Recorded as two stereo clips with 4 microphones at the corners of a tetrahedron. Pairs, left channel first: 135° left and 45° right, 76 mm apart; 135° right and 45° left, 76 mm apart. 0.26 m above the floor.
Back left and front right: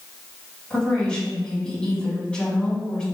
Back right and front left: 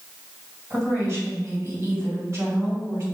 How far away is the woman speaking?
About 2.0 m.